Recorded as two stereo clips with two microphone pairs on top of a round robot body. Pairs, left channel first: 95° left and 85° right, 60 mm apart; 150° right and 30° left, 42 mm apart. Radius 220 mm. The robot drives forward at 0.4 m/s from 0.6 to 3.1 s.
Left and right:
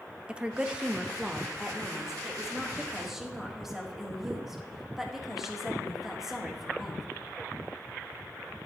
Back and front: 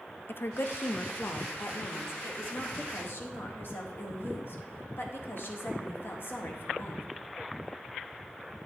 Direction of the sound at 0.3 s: 165° right.